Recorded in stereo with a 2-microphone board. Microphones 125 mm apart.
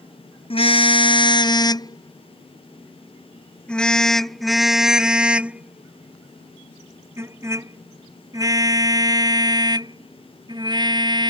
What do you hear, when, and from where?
0.5 s a car horn: 45° left (ahead or behind); by 11.3 s 35° right (ahead or behind)